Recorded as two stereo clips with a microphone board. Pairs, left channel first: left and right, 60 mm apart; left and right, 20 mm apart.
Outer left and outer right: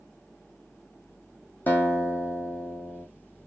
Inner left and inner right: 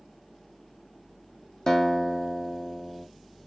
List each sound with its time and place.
1.7 s a guitar: 30° left (ahead or behind), 1.7 m